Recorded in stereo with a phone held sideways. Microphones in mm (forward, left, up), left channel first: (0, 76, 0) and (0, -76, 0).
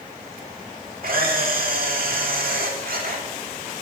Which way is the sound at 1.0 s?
70° right (ahead or behind).